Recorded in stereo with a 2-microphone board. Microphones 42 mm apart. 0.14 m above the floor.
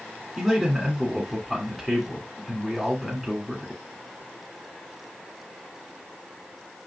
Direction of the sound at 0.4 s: 5° right (ahead or behind).